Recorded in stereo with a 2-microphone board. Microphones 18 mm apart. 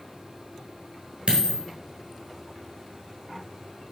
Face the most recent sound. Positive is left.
turn(degrees=-65)  # may be behind; listen again after turning